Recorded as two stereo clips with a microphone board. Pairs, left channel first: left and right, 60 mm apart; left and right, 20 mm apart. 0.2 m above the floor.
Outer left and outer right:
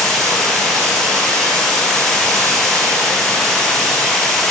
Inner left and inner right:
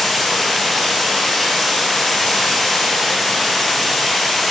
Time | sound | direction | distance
0.0 | running water | 10° left (ahead or behind) | 2.5 m